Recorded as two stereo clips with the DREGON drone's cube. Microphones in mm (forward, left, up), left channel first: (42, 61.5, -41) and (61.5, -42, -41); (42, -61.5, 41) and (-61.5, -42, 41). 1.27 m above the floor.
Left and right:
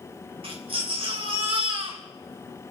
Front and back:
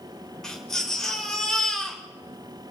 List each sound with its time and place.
0.4 s a baby crying: 95° right, 3 m